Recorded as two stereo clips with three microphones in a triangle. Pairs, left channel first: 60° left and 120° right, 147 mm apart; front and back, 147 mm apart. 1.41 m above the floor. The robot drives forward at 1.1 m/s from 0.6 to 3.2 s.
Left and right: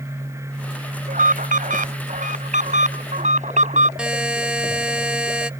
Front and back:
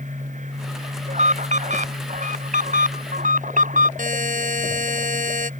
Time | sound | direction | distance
1.1 | an alarm | 145° right | ?
4.0 | a buzzer | 155° left | ?